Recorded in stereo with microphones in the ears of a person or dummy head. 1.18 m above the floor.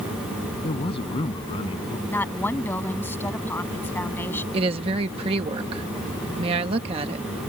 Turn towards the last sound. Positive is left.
turn(degrees=-35)  # may be behind; listen again after turning